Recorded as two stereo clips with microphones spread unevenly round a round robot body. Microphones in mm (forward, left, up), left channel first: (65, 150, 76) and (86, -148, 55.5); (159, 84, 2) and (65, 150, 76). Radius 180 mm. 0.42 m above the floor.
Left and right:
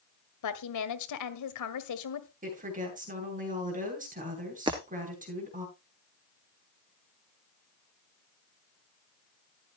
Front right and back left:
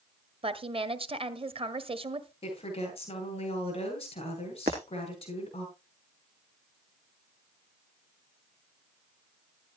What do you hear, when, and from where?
0.4 s a woman speaking: 95° left, 1.8 m
2.4 s a woman speaking: 25° right, 9 m
4.7 s breaking glass: 165° right, 1.1 m